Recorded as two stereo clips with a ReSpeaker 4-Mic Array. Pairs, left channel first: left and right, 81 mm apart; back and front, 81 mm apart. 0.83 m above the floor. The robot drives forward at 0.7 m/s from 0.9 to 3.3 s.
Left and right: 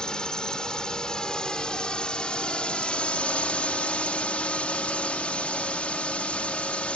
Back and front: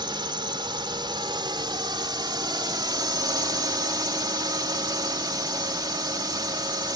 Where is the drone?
10° left; by 7.0 s 15° left.